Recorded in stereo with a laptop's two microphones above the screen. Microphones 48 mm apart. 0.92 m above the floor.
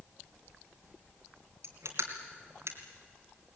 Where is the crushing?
75° right (ahead or behind), 2.5 m.